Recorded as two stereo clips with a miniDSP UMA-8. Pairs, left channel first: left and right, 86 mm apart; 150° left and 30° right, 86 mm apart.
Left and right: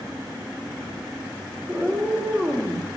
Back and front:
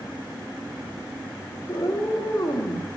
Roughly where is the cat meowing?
Behind.